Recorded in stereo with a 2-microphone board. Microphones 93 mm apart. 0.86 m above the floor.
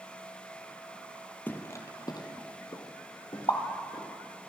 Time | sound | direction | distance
1.5 | footsteps | 20° left (ahead or behind) | 1.4 m
3.5 | a pop | 55° left (ahead or behind) | 1.5 m